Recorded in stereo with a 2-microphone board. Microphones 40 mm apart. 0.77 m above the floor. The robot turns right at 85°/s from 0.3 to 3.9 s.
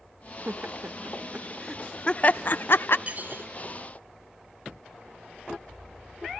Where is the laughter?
55° right (ahead or behind), 0.7 m; by 3.0 s 60° left (ahead or behind), 0.7 m.